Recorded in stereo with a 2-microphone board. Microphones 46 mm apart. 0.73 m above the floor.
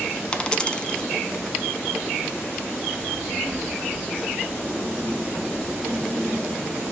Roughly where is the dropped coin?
Centre.